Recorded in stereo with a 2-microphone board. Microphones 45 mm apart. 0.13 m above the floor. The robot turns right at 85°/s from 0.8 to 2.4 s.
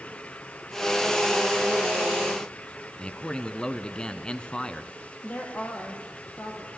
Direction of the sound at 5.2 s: 40° left (ahead or behind).